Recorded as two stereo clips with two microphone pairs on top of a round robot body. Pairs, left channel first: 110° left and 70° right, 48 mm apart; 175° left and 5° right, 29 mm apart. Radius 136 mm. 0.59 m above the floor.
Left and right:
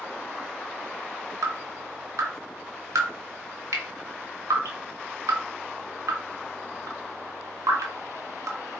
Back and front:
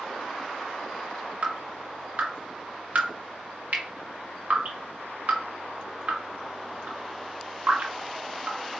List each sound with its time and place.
1.4 s dripping: 50° right, 1.1 m